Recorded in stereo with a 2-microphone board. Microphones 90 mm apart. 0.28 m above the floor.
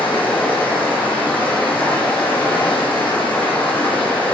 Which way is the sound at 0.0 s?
20° left (ahead or behind).